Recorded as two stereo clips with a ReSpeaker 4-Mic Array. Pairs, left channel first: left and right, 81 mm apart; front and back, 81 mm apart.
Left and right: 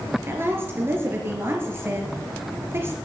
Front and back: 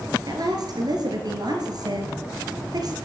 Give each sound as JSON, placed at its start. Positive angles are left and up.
{"t": 0.3, "sound": "a woman speaking", "azimuth_deg": -150, "distance_m": 3.5}